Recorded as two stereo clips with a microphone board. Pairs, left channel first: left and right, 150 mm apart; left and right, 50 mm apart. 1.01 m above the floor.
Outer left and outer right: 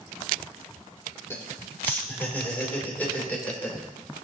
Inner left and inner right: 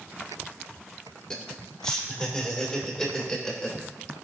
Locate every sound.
1.3 s laughter: 15° left (ahead or behind), 2 m; by 3.8 s 10° left (ahead or behind), 3.5 m